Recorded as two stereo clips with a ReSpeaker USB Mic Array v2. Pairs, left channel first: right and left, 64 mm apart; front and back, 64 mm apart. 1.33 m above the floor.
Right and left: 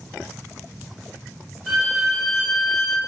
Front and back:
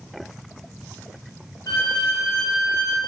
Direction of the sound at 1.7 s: Straight ahead.